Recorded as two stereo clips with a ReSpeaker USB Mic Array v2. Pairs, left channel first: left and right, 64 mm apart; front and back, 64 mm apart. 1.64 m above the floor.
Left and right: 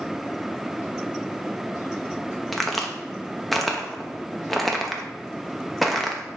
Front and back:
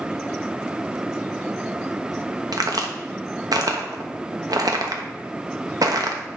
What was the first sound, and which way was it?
A crack, straight behind.